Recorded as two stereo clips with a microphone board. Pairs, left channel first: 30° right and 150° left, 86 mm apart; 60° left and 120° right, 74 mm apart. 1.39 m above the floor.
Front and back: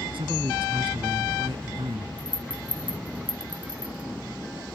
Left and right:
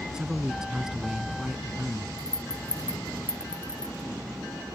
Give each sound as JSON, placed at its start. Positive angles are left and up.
{"t": 0.1, "sound": "a man speaking", "azimuth_deg": 155}
{"t": 2.2, "sound": "a rattle", "azimuth_deg": 75}